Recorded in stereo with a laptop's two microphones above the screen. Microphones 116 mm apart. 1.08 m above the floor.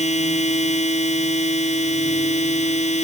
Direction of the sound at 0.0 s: 80° left.